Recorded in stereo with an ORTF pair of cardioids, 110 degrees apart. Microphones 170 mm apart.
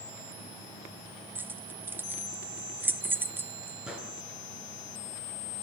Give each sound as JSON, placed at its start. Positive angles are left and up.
{"t": 1.4, "sound": "keys jangling", "azimuth_deg": -10, "distance_m": 0.7}
{"t": 3.9, "sound": "a gunshot", "azimuth_deg": -5, "distance_m": 7.0}